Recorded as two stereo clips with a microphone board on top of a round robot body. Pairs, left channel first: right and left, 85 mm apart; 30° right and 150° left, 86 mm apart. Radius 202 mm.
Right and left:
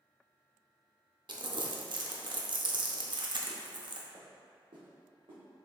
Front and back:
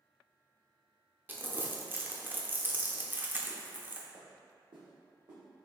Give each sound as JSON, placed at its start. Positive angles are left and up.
{"t": 1.3, "sound": "crumpling", "azimuth_deg": 85, "distance_m": 0.8}
{"t": 4.1, "sound": "footsteps", "azimuth_deg": 135, "distance_m": 0.9}